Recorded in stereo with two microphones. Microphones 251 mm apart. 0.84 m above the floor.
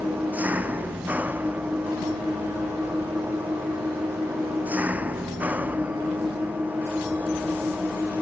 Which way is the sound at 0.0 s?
5° right (ahead or behind).